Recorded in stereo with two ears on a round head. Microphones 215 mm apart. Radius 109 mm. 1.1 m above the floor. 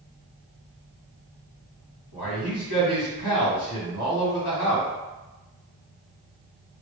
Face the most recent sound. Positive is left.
turn(degrees=65)  # may be behind; listen again after turning